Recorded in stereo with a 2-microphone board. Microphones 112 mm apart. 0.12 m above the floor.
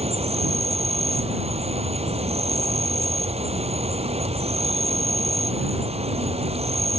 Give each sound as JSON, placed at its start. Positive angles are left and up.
{"t": 0.0, "sound": "an insect", "side_deg": -65}